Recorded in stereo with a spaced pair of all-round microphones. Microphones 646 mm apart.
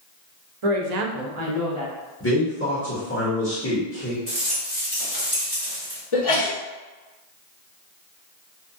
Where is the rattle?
25° right (ahead or behind), 1.7 m.